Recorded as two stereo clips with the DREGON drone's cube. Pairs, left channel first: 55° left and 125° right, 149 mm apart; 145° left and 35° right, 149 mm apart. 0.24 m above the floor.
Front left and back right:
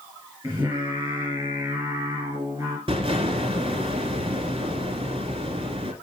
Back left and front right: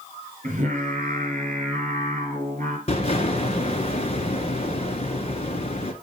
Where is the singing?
60° right, 4 m.